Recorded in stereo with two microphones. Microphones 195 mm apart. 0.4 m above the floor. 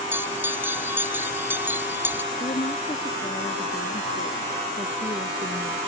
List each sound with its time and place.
0.1 s a bell: 10° right (ahead or behind)
2.3 s a woman speaking: 40° left (ahead or behind)